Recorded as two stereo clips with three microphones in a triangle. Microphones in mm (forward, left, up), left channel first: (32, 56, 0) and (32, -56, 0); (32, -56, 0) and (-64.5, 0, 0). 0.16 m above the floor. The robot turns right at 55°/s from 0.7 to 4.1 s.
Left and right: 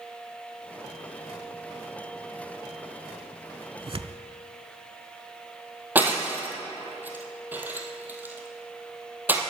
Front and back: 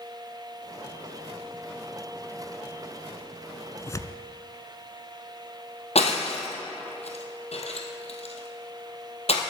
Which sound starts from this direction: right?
Tearing paper, at 3.8 s.